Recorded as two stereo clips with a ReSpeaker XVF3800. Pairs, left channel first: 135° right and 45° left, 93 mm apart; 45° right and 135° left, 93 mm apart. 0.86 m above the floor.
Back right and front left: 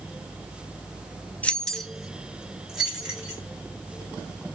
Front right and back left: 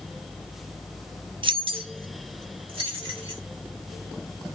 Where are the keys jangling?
150° left, 0.5 m; by 3.4 s 125° left, 2.5 m.